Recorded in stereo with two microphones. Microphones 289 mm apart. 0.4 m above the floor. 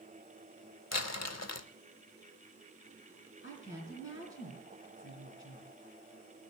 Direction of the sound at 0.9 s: 60° left (ahead or behind).